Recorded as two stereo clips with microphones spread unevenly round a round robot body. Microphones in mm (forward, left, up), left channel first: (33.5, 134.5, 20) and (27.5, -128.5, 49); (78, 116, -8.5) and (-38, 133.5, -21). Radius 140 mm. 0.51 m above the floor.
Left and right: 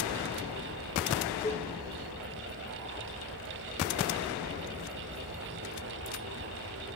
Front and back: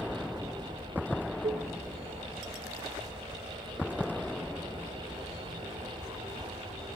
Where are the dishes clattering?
155° left, 0.7 m.